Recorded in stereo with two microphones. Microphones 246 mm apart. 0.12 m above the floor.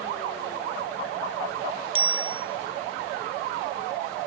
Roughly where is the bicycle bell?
Right.